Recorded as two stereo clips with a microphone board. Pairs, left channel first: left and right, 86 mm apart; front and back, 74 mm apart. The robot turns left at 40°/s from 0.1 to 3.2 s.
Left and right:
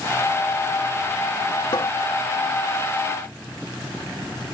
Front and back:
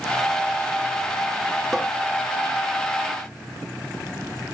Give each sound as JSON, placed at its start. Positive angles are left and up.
{"t": 1.7, "sound": "a cupboard door", "azimuth_deg": 100}